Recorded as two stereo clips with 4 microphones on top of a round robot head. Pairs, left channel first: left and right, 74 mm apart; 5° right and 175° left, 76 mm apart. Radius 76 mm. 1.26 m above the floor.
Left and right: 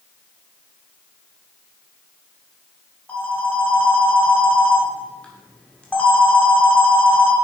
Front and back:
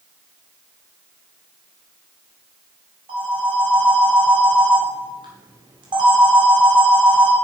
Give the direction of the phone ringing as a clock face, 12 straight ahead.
7 o'clock.